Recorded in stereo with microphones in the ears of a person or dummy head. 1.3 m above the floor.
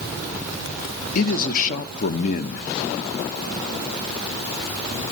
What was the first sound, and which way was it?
A man speaking, 55° left (ahead or behind).